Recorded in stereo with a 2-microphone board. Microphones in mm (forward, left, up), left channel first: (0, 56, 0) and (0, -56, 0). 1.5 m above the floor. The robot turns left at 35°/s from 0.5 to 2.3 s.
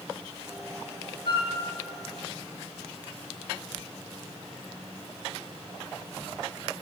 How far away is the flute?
About 2 m.